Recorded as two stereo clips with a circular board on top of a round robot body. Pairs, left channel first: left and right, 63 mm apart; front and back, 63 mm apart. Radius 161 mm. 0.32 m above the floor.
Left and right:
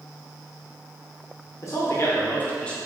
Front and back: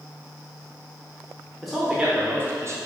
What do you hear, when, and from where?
1.6 s a man speaking: 90° left, 1.1 m; by 2.8 s 165° left, 1.1 m